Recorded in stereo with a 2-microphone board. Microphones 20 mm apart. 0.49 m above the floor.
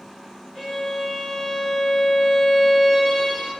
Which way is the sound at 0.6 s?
5° left (ahead or behind).